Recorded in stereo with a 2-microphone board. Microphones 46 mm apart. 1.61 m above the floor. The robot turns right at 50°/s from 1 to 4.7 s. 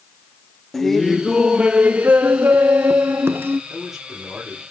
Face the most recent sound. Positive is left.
turn(degrees=-130)